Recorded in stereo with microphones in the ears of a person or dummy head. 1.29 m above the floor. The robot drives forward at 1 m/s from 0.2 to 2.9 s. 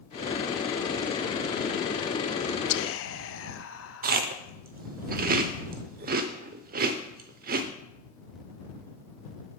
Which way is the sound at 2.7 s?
65° left (ahead or behind).